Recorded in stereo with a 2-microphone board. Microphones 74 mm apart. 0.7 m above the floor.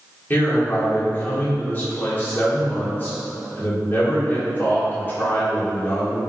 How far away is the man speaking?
About 1.3 m.